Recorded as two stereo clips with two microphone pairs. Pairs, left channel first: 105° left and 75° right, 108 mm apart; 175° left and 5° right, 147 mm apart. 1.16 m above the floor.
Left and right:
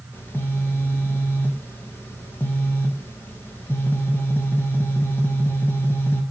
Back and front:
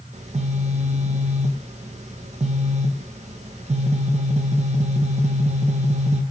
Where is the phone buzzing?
35° left, 0.5 m.